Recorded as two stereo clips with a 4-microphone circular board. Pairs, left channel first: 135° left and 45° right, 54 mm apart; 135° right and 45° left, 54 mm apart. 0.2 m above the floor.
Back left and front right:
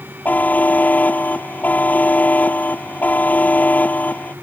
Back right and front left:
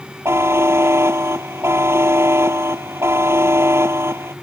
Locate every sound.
0.2 s a buzzer: 75° left